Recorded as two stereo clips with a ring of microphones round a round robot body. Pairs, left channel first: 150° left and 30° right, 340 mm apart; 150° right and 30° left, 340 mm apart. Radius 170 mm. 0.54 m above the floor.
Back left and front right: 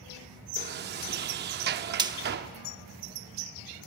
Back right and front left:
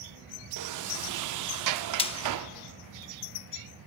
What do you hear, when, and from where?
0.6 s a sliding door: 25° left, 0.6 m
2.0 s frying: 95° right, 0.7 m